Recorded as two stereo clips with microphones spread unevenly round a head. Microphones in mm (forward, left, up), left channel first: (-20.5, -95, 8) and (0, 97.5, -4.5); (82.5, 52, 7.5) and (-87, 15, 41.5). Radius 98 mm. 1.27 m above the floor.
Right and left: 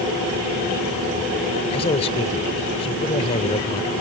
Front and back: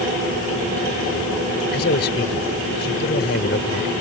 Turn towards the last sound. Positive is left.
turn(degrees=-30)